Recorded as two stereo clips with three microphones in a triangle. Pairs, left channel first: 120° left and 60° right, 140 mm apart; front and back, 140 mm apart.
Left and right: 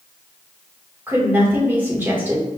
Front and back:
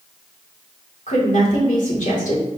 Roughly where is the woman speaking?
Ahead.